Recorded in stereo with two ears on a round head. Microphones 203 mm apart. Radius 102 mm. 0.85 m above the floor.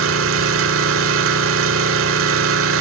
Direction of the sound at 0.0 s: 65° right (ahead or behind).